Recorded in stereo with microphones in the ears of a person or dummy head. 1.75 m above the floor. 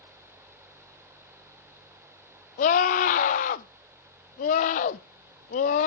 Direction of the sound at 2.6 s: 60° left (ahead or behind).